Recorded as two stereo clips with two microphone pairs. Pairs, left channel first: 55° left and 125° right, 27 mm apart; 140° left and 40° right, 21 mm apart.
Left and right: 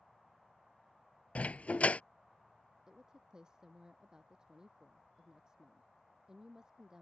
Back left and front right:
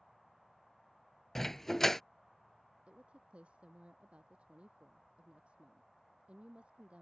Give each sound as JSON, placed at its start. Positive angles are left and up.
{"t": 1.4, "sound": "a dog barking", "azimuth_deg": 70}
{"t": 2.9, "sound": "a woman speaking", "azimuth_deg": -60}